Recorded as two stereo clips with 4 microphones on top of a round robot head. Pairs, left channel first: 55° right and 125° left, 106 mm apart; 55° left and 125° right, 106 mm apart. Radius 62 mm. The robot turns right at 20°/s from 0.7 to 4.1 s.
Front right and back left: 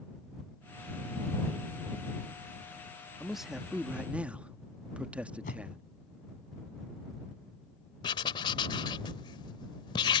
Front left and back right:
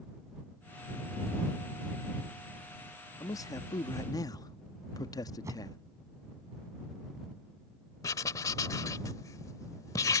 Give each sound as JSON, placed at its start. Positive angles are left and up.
{"t": 3.2, "sound": "a man speaking", "azimuth_deg": 35}
{"t": 5.4, "sound": "a whoosh", "azimuth_deg": -60}
{"t": 8.0, "sound": "writing", "azimuth_deg": -5}